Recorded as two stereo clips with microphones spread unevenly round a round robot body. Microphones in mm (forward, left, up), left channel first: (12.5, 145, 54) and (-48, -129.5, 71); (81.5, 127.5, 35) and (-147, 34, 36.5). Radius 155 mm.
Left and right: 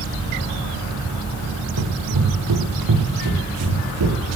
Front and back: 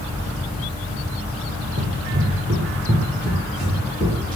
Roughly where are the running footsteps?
Right.